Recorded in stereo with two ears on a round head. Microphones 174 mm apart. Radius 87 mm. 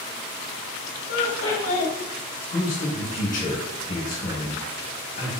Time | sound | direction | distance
1.1 | laughter | 75° left (ahead or behind) | 1.3 m
2.5 | a man speaking | 40° left (ahead or behind) | 1.3 m